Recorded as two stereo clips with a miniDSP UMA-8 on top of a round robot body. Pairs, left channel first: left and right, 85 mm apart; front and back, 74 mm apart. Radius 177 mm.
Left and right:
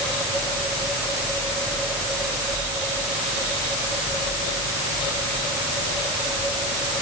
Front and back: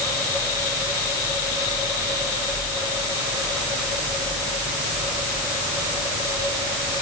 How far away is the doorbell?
I don't hear a doorbell.